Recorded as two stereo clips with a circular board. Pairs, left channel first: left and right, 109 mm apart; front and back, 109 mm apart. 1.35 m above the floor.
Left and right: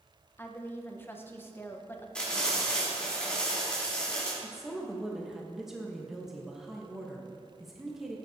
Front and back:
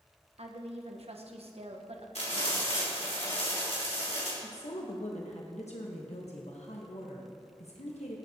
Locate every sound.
0.4 s a woman speaking: 160° left, 1.1 m
2.1 s frying: 10° left, 3.5 m
4.4 s a woman speaking: 5° right, 1.2 m